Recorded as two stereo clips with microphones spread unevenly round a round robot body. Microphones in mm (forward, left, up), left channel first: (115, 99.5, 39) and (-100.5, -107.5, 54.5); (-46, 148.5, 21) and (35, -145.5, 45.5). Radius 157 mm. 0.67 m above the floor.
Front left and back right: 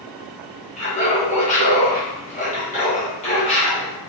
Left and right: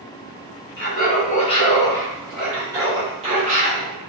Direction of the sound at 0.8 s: 90° left.